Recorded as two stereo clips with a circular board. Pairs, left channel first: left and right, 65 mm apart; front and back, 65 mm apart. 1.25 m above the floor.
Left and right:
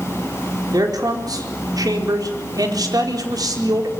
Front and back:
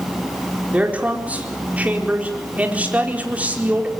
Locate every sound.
0.7 s a man speaking: 110° right, 4.5 m